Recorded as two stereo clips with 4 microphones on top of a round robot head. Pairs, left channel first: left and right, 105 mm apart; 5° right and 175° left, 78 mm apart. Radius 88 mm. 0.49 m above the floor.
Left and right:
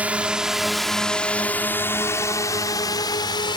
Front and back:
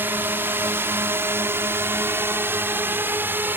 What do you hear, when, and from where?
0.0 s a drone: 155° right; by 3.6 s 115° left